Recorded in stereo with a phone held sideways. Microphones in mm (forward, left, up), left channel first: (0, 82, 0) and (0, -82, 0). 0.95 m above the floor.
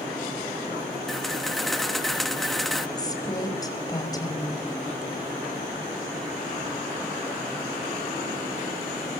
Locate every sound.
1.1 s a camera shutter: centre (ahead or behind), 1.2 m
3.0 s a woman speaking: 25° left (ahead or behind), 4.5 m